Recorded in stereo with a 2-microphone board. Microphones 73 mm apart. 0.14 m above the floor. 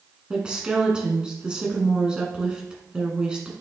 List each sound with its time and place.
0.3 s a woman speaking: 15° right (ahead or behind), 1.6 m